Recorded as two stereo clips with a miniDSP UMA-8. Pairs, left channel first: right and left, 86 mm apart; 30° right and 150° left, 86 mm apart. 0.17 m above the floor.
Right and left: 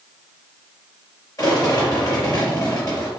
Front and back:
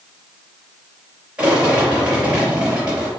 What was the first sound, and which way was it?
A rattle, 130° right.